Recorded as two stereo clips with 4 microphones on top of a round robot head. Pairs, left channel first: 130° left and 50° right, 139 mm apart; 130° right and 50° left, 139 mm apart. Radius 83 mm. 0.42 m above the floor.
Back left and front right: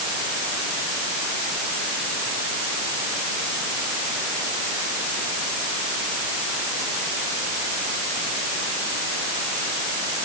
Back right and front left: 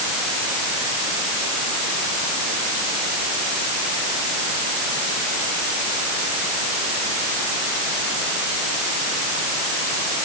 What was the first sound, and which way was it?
Only background noise.